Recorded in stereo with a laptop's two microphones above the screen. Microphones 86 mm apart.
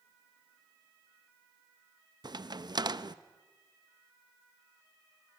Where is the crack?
55° right (ahead or behind), 0.6 m.